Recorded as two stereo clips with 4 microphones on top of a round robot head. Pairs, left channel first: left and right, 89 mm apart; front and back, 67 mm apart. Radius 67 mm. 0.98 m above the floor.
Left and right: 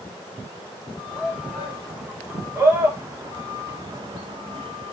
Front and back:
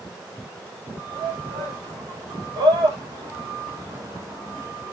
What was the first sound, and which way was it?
A shout, 175° right.